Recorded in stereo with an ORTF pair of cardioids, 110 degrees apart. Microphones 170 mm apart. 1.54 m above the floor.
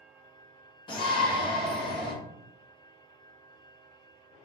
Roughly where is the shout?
Ahead left.